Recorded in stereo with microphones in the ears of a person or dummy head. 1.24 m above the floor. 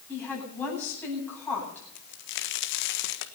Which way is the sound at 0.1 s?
10° left (ahead or behind).